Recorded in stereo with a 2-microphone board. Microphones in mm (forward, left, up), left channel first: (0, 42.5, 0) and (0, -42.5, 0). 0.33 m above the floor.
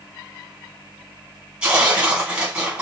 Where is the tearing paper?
10° right (ahead or behind), 2.5 m.